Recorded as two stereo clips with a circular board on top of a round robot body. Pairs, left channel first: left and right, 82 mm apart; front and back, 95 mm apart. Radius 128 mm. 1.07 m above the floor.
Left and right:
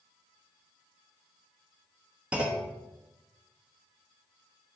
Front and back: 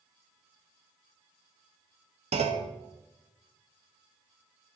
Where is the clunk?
170° right, 0.8 m.